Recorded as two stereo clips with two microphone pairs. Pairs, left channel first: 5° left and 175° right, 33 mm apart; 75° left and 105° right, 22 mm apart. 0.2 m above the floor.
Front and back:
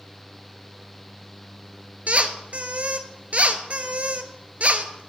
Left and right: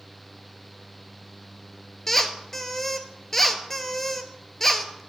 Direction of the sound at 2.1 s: 150° left.